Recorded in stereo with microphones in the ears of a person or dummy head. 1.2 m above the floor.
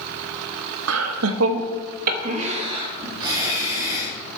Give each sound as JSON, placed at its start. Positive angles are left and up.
{"t": 0.9, "sound": "laughter", "side_deg": -75, "distance_m": 0.9}